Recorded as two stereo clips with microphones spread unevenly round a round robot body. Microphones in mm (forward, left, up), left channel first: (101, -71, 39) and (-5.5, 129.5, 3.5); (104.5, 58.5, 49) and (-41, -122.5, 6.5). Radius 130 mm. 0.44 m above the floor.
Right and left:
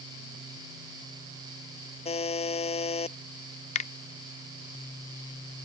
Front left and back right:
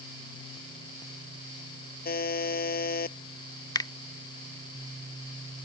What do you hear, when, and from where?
2.0 s a buzzer: straight ahead
3.8 s a finger snap: 25° right